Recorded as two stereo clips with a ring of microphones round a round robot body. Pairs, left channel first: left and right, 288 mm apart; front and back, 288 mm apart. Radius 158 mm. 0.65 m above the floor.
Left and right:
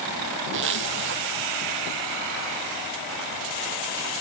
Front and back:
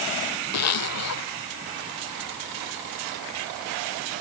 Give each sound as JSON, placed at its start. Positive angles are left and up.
{"t": 0.5, "sound": "a zipper", "azimuth_deg": -35}